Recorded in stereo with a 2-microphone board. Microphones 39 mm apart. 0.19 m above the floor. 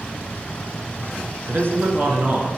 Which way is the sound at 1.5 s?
55° right (ahead or behind).